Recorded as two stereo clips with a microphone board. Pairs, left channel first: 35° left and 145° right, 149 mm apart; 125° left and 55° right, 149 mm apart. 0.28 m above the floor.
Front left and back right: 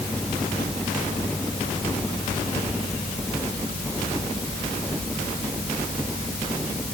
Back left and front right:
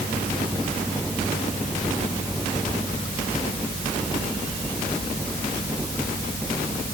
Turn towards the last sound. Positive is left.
No sound to turn to.